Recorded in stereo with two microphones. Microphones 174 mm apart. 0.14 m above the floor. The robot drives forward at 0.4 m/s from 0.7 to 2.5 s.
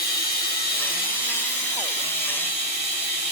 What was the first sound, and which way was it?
Running water, 60° left (ahead or behind).